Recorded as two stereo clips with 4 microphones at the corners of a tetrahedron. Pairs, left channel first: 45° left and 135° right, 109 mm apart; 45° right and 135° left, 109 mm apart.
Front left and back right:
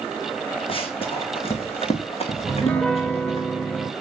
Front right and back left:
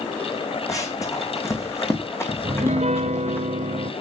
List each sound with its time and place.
0.7 s running footsteps: 15° left, 2.5 m; by 3.4 s 25° left, 4.5 m
2.4 s a piano: 125° left, 1.1 m